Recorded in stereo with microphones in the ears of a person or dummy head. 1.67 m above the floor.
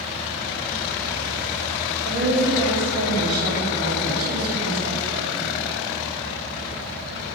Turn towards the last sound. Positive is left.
turn(degrees=-55)  # may be behind; listen again after turning